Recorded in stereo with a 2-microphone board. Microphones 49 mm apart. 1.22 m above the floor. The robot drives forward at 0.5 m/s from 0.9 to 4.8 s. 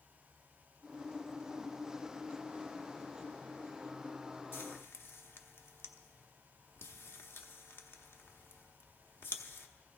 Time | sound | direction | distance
4.5 | frying | 55° left (ahead or behind) | 0.9 m